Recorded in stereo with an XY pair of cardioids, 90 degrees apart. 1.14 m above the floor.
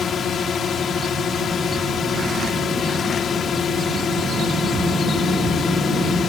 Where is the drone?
65° left.